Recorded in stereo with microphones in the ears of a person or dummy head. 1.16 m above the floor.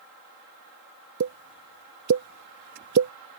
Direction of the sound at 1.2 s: 55° right (ahead or behind).